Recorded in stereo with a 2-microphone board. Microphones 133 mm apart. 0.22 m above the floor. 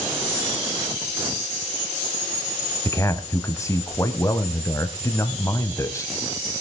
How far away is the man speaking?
About 1.0 m.